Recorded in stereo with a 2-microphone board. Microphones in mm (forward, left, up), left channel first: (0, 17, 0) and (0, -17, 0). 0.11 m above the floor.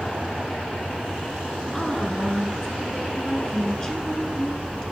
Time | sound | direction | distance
1.7 | a woman speaking | 15° left (ahead or behind) | 1.1 m